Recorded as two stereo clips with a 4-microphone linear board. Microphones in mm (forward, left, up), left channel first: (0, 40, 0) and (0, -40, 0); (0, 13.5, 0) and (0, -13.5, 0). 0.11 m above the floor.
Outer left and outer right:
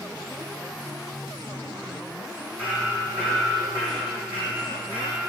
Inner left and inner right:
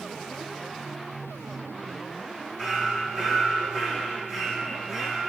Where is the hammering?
20° right (ahead or behind), 4 m.